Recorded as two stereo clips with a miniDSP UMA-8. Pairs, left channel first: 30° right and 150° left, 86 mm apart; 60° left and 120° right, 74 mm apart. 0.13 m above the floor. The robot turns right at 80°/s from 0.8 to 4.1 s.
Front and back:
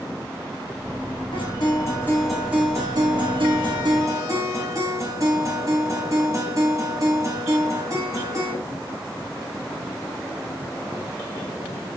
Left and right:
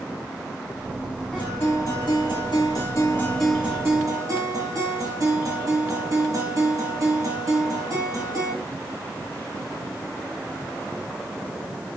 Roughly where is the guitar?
Ahead.